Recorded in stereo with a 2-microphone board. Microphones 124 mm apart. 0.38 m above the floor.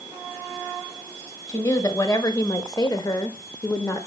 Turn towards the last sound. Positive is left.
turn(degrees=20)  # may be behind; listen again after turning